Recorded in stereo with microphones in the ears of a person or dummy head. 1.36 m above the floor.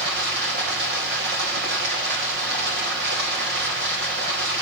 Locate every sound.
0.0 s running water: 55° right (ahead or behind), 2 m